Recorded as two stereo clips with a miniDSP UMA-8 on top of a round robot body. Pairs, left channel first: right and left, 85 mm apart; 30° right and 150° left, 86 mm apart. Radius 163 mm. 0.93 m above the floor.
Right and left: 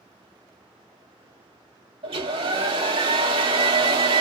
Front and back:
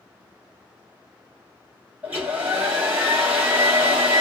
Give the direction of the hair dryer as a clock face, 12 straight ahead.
9 o'clock.